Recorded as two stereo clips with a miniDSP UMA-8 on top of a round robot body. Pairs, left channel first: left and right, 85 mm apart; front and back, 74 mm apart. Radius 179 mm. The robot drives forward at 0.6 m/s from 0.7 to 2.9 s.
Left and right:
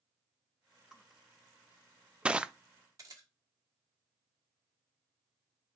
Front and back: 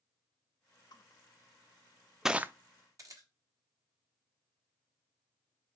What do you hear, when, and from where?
0.9 s crushing: 5° right, 0.9 m; by 2.5 s 160° right, 0.5 m
3.0 s a camera shutter: 140° right, 1.2 m